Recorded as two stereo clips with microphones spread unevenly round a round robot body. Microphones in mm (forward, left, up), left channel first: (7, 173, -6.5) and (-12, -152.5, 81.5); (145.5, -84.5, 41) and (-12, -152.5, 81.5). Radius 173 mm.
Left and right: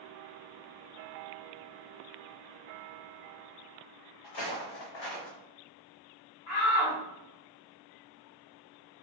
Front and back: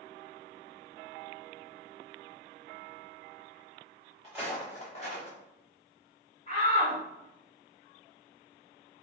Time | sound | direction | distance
4.2 | footsteps | 120° left | 1.5 m
6.5 | a shout | 70° left | 1.4 m